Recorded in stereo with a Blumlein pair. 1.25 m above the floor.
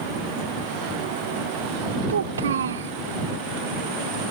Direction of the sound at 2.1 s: 65° right.